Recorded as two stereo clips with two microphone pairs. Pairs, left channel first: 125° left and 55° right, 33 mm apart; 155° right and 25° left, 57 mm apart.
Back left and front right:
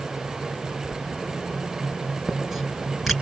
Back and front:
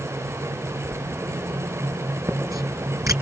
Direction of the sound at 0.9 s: 30° left.